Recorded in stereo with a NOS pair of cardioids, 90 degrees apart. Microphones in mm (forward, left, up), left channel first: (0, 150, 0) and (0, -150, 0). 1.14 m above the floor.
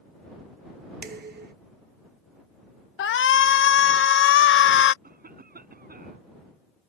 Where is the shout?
40° left.